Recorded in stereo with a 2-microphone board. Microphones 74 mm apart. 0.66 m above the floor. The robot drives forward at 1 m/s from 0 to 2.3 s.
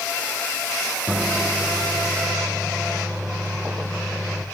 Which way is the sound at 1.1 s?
15° right (ahead or behind).